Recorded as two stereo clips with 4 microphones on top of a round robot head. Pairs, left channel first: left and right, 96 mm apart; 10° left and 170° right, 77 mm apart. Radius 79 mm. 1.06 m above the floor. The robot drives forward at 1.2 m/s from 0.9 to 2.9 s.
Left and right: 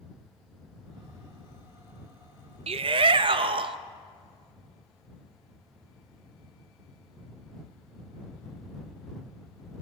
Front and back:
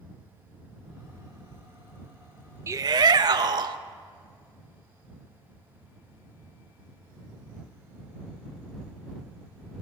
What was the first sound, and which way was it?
A shout, 105° right.